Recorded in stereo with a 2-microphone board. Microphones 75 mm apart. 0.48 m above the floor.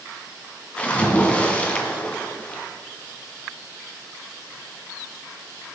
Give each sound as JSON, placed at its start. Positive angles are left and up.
{"t": 0.8, "sound": "a splash", "side_deg": 15, "distance_m": 1.8}